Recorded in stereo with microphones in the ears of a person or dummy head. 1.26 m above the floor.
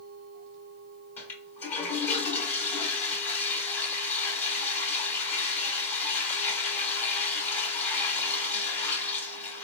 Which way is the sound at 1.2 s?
15° left (ahead or behind).